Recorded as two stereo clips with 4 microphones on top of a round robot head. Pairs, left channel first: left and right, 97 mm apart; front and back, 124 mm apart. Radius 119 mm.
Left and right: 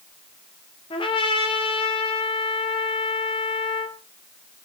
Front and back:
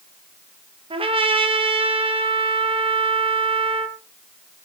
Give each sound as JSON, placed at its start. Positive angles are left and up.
{"t": 0.9, "sound": "a trumpet", "azimuth_deg": 135, "distance_m": 2.5}